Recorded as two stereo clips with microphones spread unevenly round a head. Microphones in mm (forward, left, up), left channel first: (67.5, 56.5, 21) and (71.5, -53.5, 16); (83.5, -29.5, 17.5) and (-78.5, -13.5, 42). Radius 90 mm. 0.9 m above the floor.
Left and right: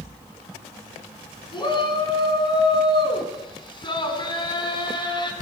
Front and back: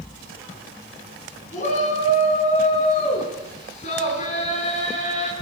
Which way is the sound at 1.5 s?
50° left.